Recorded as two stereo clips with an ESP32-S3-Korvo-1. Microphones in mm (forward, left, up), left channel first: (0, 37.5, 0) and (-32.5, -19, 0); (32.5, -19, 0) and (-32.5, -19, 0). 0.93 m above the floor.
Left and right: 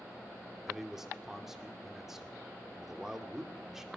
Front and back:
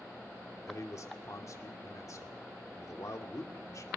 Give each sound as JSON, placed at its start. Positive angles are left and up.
{"t": 0.7, "sound": "a man speaking", "azimuth_deg": -35, "distance_m": 2.5}